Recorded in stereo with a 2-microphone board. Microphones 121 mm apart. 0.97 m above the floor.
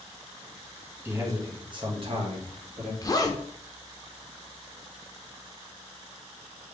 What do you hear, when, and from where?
1.1 s a man speaking: 20° right (ahead or behind), 1.3 m; by 2.9 s 65° right (ahead or behind), 1.6 m
3.0 s a zipper: 30° left (ahead or behind), 0.6 m